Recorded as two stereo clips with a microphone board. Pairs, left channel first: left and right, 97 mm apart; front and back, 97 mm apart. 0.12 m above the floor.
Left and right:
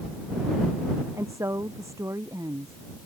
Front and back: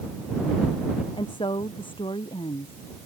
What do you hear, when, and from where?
1.1 s a woman speaking: 30° right